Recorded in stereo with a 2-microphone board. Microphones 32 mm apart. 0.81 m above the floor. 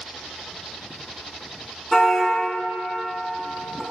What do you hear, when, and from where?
1.9 s a car horn: 15° left (ahead or behind), 4.5 m; by 3.8 s centre (ahead or behind), 4 m